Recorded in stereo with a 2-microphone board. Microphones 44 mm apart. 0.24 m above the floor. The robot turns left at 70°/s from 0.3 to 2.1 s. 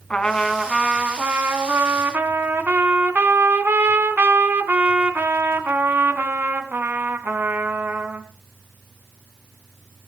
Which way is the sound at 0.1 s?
20° left.